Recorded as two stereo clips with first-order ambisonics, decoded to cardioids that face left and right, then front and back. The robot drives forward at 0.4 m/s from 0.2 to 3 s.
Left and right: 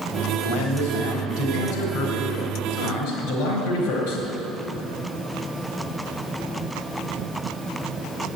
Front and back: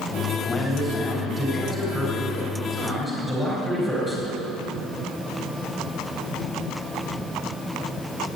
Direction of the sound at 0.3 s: 85° left.